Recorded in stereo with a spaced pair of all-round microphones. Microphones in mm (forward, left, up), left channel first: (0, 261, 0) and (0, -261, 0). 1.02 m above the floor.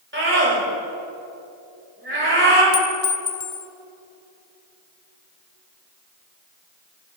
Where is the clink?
80° left, 0.7 m.